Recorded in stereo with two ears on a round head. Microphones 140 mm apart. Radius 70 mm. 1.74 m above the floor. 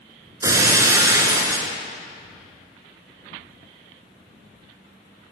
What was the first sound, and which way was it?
Breaking glass, 20° right (ahead or behind).